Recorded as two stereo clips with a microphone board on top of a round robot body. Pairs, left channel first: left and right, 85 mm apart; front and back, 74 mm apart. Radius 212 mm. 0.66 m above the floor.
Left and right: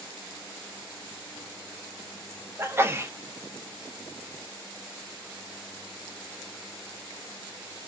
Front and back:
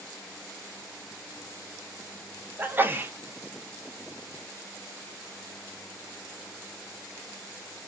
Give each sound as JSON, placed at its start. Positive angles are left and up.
{"t": 2.6, "sound": "a sneeze", "azimuth_deg": -135, "distance_m": 0.8}